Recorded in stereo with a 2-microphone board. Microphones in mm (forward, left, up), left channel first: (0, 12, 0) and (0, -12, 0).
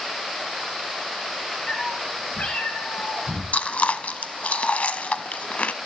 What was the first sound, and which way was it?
A cat meowing, 50° left (ahead or behind).